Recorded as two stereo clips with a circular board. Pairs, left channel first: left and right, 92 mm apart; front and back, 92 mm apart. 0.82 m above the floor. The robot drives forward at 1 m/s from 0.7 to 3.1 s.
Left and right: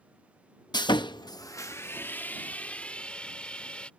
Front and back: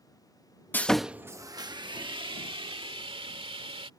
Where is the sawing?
65° left; by 3.9 s 165° left.